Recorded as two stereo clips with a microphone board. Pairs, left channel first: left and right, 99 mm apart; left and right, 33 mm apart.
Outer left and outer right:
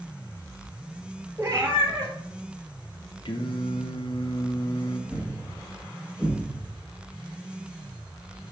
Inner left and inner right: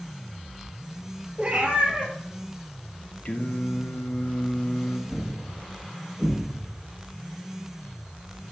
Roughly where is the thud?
Centre.